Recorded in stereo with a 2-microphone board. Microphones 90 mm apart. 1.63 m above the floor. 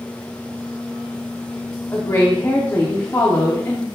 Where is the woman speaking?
30° left (ahead or behind), 1.3 m.